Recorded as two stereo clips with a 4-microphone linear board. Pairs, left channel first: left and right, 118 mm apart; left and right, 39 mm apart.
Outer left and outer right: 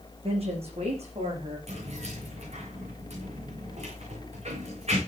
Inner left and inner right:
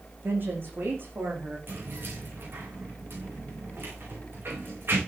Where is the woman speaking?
50° right (ahead or behind), 9.5 m; by 1.6 s 60° right (ahead or behind), 11.5 m.